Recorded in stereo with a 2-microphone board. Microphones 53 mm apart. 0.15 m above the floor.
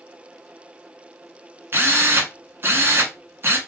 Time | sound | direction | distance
1.7 | a drill | 40° right (ahead or behind) | 0.9 m